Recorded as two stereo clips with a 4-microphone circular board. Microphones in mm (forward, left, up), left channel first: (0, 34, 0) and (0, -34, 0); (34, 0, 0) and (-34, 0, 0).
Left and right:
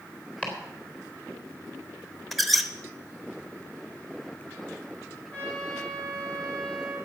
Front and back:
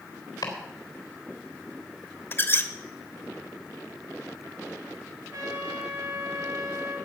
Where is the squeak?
Straight ahead, 1.0 m.